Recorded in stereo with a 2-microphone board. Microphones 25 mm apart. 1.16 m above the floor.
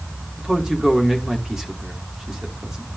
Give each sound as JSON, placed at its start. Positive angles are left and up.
{"t": 0.4, "sound": "a man speaking", "side_deg": -30, "distance_m": 2.5}